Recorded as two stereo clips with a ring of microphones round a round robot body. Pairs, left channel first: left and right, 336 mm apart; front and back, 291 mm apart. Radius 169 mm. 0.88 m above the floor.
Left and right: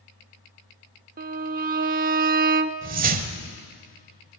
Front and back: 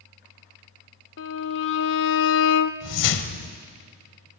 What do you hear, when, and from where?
1.2 s a violin: 35° right, 0.6 m
2.8 s a whoosh: 25° right, 1.3 m